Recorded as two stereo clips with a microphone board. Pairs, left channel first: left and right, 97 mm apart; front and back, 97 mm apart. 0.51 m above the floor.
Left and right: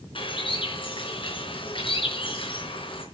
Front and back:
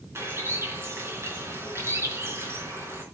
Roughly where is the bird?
Behind left.